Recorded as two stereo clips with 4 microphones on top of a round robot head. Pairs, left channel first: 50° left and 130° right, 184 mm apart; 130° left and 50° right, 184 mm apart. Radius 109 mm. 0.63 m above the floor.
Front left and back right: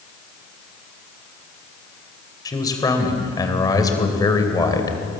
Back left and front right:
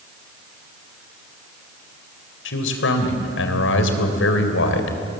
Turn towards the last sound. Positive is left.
turn(degrees=120)